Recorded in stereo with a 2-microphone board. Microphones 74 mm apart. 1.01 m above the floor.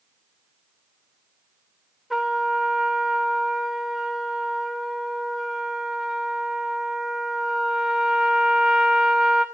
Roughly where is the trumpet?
Centre.